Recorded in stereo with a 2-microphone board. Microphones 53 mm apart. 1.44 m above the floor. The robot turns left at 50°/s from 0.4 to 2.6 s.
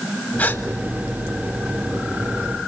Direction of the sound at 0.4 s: 40° left (ahead or behind).